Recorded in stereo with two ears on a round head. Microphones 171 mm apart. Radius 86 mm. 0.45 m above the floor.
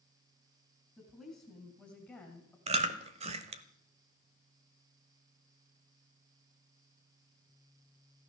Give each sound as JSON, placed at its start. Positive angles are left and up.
{"t": 1.0, "sound": "a woman speaking", "side_deg": -10, "distance_m": 4.0}
{"t": 2.7, "sound": "chewing", "side_deg": -35, "distance_m": 1.1}